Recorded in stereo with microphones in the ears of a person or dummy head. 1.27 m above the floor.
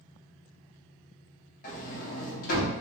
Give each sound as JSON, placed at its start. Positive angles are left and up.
{"t": 1.6, "sound": "a sliding door", "side_deg": 50, "distance_m": 1.0}